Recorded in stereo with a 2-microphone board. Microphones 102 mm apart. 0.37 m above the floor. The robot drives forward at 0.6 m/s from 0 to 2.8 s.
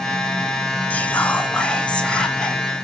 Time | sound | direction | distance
0.9 | whispering | 15° left (ahead or behind) | 1.1 m